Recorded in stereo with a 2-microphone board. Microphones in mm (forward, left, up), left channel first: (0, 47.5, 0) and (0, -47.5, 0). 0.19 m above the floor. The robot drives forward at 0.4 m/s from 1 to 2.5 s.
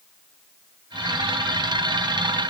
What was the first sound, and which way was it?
Only background noise.